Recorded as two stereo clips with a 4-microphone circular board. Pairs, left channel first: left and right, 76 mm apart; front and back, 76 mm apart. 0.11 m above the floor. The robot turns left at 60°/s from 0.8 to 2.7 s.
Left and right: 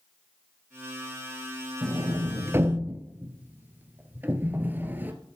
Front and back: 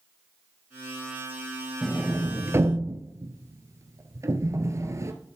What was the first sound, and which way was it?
A sliding door, 95° right.